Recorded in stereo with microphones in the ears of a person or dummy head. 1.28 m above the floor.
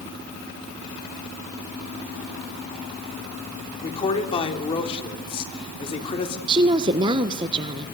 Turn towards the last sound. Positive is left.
turn(degrees=-30)  # may be behind; listen again after turning